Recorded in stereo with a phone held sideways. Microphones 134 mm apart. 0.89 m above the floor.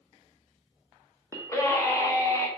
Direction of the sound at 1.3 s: 20° left (ahead or behind).